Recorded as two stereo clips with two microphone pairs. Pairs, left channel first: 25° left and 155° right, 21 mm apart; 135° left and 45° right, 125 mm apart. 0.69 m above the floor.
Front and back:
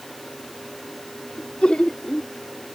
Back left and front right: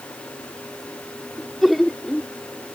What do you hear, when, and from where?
1.4 s laughter: 45° left